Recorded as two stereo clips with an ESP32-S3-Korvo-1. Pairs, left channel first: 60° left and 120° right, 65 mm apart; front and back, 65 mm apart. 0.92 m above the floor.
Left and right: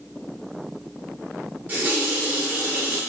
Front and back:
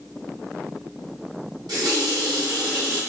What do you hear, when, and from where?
1.7 s a running tap: 175° left, 1.4 m